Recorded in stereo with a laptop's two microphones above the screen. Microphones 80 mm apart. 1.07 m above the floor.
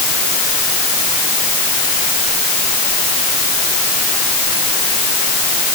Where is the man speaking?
No man speaking in this recording.